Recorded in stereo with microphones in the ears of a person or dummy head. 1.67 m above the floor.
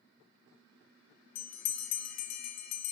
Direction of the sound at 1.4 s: 75° left (ahead or behind).